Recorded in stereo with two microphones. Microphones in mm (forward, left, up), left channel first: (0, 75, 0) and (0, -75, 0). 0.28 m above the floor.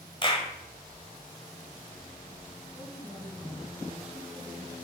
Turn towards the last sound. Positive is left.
turn(degrees=-5)  # may be behind; listen again after turning